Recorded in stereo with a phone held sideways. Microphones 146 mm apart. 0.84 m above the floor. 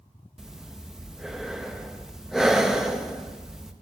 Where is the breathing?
5° right (ahead or behind), 0.6 m.